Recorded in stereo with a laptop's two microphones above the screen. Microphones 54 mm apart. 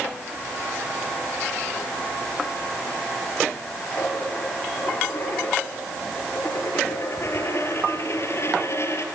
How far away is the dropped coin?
About 4.5 m.